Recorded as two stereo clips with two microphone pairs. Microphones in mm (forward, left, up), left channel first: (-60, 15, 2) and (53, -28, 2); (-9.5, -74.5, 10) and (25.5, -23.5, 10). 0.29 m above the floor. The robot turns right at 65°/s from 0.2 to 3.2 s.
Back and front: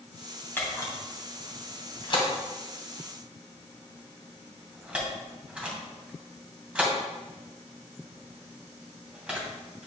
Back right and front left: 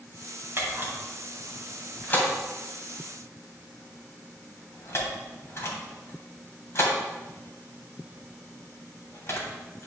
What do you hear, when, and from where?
0.6 s a camera shutter: 90° left, 2.5 m; by 9.9 s 100° right, 2.5 m